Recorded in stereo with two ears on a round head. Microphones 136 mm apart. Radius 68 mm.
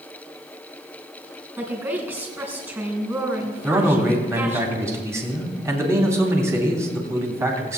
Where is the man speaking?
20° right (ahead or behind), 3 m.